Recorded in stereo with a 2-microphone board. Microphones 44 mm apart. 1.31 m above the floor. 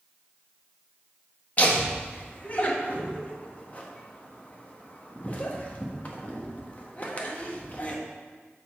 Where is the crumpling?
I don't hear crumpling.